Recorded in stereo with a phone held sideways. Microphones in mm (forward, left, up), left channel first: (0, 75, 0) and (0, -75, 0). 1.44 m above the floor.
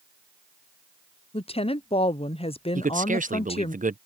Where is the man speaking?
60° right (ahead or behind).